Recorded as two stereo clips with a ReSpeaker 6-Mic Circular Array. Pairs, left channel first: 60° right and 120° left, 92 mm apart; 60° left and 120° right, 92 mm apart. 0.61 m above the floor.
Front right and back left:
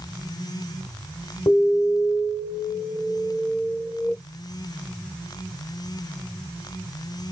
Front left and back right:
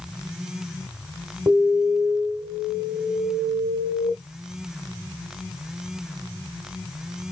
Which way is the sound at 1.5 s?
60° right.